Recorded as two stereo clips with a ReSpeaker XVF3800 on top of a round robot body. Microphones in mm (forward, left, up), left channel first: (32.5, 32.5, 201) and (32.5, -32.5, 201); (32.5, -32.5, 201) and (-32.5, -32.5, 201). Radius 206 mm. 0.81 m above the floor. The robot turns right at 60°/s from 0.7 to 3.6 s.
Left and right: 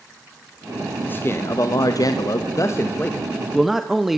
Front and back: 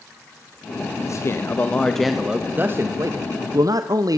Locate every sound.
1.0 s a man speaking: 30° left, 1.6 m; by 4.2 s 175° right, 1.6 m